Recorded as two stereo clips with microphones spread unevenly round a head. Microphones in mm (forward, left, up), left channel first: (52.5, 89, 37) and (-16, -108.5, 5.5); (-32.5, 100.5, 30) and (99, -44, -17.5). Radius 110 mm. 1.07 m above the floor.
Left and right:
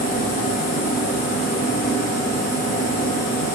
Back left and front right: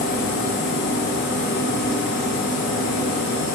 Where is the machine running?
115° left, 0.8 m.